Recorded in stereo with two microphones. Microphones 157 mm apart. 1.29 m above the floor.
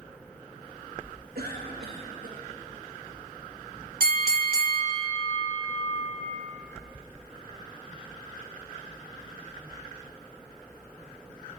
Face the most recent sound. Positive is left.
turn(degrees=-65)  # may be behind; listen again after turning